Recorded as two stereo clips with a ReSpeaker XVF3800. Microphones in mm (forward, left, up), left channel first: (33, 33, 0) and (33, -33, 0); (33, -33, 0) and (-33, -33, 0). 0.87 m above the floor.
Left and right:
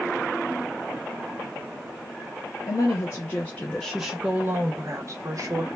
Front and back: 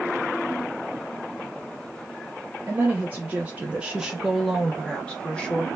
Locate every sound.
2.7 s a woman speaking: 125° left, 0.8 m; by 5.7 s 70° right, 0.9 m